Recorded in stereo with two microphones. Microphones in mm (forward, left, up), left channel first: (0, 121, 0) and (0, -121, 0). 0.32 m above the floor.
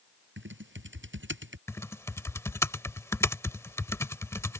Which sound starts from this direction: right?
Typing on a keyboard, at 0.4 s.